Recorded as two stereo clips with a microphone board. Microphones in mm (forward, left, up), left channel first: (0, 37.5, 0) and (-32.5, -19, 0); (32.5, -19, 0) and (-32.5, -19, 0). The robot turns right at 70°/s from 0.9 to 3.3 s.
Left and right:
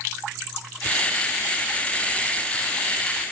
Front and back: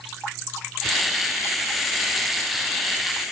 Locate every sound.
Only background noise.